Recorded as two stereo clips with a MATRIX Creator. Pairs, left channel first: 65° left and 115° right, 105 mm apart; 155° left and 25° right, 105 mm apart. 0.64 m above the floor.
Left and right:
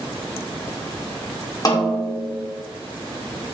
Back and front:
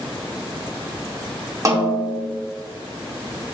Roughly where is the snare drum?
Ahead left.